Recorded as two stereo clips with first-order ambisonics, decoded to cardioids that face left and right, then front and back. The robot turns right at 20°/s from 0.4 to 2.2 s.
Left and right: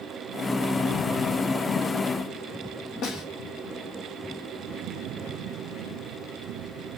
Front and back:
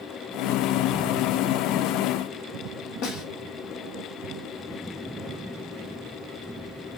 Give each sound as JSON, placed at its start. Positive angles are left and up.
{"t": 3.0, "sound": "a snare drum", "azimuth_deg": 40, "distance_m": 0.9}